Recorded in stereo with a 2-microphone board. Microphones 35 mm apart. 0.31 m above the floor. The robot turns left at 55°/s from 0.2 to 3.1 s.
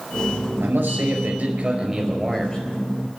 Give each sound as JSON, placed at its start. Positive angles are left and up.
{"t": 0.6, "sound": "a man speaking", "azimuth_deg": -95, "distance_m": 5.0}